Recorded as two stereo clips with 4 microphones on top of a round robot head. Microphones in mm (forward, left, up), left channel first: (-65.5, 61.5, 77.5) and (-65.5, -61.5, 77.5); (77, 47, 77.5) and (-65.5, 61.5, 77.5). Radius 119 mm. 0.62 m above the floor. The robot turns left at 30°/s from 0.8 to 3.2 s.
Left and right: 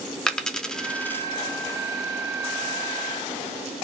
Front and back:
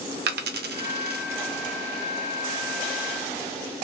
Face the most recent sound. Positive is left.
turn(degrees=100)